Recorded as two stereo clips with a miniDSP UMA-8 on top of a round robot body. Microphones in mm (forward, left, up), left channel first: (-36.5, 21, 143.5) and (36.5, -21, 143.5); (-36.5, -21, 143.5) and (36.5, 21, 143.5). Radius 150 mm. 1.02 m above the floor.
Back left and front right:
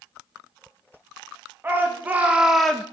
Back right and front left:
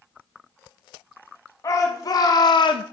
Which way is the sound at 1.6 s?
100° right.